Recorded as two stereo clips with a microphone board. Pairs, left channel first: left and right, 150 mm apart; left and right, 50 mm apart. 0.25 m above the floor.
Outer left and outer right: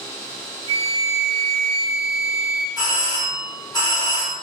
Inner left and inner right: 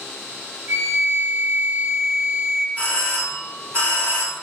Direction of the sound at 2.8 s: 30° left (ahead or behind).